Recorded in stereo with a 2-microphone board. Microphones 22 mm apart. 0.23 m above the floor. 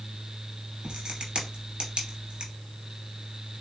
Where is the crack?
45° right (ahead or behind), 3 m.